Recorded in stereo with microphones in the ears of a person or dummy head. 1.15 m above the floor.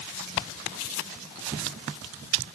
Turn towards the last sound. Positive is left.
No sound to turn to.